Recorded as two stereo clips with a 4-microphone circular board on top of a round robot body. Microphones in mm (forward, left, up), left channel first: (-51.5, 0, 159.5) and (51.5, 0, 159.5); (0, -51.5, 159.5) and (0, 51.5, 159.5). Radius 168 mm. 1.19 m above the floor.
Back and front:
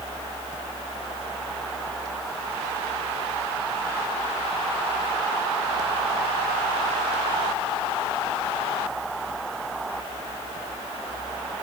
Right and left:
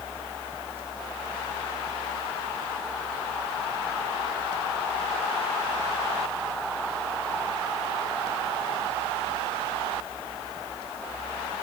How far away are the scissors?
No scissors in this recording.